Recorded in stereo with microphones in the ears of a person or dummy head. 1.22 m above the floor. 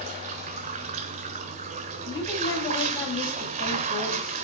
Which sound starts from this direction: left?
A woman speaking, at 2.0 s.